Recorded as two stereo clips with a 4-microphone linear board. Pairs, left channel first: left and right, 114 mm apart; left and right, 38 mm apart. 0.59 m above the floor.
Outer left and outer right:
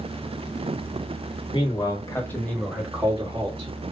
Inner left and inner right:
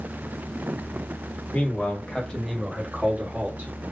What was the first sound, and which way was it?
A man speaking, 45° left (ahead or behind).